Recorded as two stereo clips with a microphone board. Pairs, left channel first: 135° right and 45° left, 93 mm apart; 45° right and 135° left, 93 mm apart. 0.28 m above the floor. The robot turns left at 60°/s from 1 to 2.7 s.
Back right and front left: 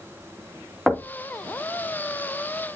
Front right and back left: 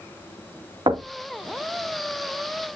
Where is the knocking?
135° left, 1.8 m; by 1.1 s 125° left, 1.8 m.